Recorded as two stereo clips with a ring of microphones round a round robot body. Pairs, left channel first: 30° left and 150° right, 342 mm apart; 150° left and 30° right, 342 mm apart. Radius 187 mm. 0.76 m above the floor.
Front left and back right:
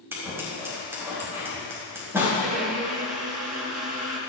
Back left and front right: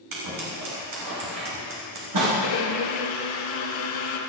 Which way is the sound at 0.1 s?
65° right.